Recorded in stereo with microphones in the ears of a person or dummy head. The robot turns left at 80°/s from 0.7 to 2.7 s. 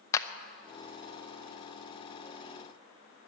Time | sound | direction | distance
0.1 | a clap | 20° left (ahead or behind) | 0.7 m